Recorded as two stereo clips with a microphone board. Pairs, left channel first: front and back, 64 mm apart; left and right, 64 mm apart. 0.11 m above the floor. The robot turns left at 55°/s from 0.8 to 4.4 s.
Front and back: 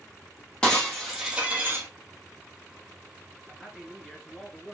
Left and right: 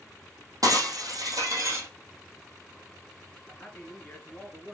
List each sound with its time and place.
0.6 s breaking glass: 75° right, 2 m; by 1.9 s 135° right, 2 m
3.5 s a man speaking: 115° left, 1.7 m; by 4.8 s 65° left, 1.7 m